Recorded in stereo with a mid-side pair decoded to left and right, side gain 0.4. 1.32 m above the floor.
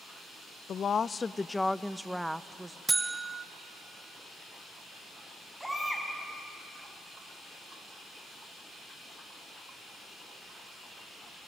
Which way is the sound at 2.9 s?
25° right.